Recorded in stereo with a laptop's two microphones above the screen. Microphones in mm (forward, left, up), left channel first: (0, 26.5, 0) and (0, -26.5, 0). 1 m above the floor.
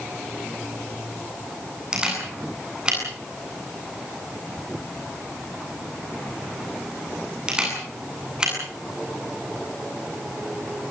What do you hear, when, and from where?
1.9 s a camera shutter: 15° right (ahead or behind), 8.5 m